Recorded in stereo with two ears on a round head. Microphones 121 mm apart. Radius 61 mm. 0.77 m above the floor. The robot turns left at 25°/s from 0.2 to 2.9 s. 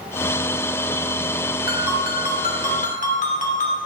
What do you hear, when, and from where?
1.7 s a ringtone: 85° left, 1.5 m; by 3.8 s 55° left, 1.5 m